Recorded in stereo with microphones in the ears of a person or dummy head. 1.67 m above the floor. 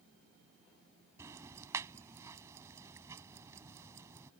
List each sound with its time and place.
1.2 s ticking: 20° right (ahead or behind)